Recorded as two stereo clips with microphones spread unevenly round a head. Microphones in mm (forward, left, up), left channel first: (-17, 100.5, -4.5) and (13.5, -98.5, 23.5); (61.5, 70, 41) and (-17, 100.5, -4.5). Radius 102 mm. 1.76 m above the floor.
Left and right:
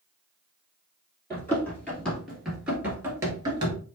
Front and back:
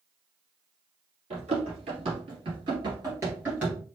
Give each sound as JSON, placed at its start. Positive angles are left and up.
{"t": 1.3, "sound": "running footsteps", "azimuth_deg": 180, "distance_m": 2.5}